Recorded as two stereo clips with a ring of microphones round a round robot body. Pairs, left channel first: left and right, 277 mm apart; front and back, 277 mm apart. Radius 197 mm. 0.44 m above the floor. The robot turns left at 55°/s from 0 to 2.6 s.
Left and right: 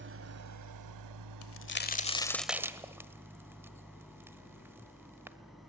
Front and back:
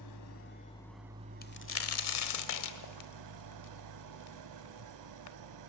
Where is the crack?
60° left, 1.3 m; by 5.4 s 10° right, 1.3 m.